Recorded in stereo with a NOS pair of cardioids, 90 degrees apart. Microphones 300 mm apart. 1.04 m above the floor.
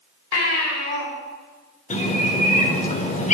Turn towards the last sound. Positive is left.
turn(degrees=25)